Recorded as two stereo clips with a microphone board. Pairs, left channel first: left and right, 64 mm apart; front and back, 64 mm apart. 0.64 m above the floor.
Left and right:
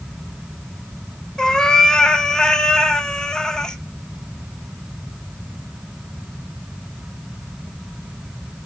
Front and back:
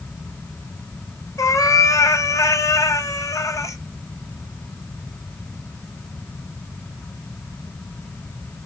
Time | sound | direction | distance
1.4 | a cat meowing | 15° left | 0.6 m